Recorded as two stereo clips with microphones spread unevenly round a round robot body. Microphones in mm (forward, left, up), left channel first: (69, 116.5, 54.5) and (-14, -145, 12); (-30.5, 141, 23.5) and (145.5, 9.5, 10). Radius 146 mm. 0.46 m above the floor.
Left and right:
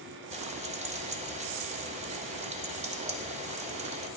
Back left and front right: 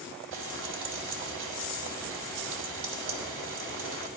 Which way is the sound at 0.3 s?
50° right.